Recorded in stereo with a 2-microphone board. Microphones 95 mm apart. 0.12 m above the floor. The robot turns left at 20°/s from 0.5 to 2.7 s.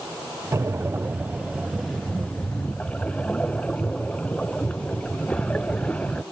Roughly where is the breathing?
Behind right.